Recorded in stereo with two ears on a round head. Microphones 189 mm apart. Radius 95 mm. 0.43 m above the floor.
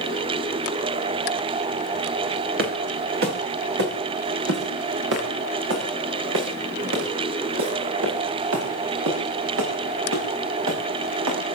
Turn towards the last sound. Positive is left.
turn(degrees=-75)  # may be behind; listen again after turning